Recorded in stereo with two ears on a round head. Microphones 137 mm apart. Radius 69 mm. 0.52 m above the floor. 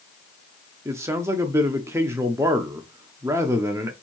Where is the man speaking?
20° right (ahead or behind), 0.7 m.